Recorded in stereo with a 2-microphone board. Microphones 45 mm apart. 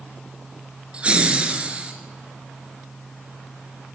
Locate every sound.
0.9 s laughter: 25° right (ahead or behind), 2.5 m